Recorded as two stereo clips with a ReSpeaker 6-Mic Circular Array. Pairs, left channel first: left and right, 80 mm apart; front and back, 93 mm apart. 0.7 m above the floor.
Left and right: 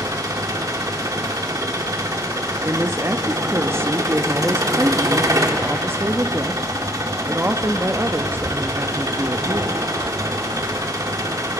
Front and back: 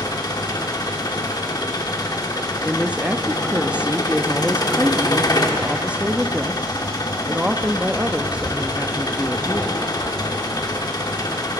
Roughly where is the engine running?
Ahead right.